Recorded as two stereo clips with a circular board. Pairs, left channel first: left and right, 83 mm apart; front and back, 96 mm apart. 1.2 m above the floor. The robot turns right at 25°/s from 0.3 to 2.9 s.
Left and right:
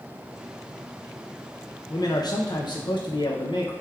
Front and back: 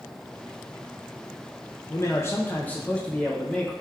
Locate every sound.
1.9 s a man speaking: 50° left, 0.5 m; by 3.7 s 75° left, 0.5 m